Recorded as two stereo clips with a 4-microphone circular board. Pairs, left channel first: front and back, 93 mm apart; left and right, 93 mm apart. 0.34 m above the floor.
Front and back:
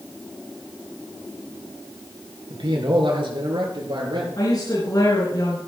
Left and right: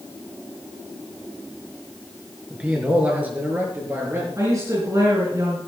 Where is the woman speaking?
40° right, 4.5 m.